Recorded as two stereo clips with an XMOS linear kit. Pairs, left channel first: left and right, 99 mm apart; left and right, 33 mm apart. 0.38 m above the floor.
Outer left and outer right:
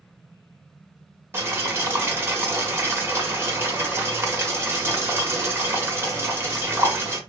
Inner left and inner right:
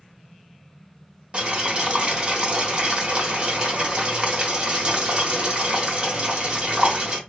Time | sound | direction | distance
1.3 | boiling | 25° right (ahead or behind) | 1.2 m